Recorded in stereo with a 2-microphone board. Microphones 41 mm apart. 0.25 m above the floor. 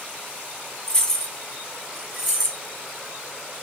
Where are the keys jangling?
15° left (ahead or behind), 1.6 m; by 2.6 s 5° left (ahead or behind), 2.5 m.